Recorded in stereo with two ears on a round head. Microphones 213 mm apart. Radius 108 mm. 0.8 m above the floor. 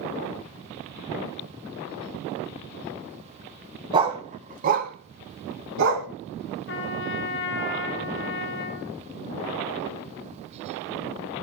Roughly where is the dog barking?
Centre.